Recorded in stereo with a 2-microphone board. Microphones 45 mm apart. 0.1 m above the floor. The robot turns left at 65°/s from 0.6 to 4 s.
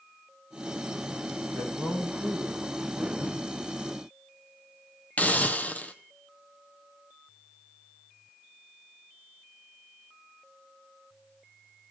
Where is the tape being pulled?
75° right (ahead or behind), 7.5 m; by 3.4 s 70° right (ahead or behind), 7.5 m.